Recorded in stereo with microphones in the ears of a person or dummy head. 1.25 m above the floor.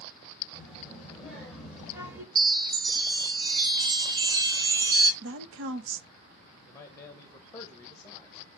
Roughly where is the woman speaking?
Right.